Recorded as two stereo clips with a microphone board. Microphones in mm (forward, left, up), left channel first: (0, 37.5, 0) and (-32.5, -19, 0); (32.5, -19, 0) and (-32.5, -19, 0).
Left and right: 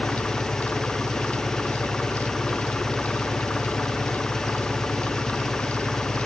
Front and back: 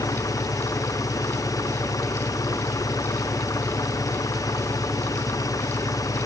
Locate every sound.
0.0 s an engine running: 20° right